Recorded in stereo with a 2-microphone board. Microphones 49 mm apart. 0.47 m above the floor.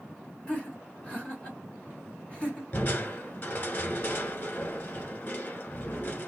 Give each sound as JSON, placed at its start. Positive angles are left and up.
{"t": 0.5, "sound": "laughter", "side_deg": 25, "distance_m": 1.6}
{"t": 2.7, "sound": "crushing", "side_deg": 45, "distance_m": 1.1}